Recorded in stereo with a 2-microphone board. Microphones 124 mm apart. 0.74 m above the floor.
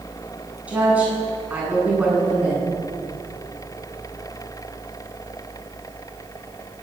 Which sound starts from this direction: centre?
A woman speaking, at 0.7 s.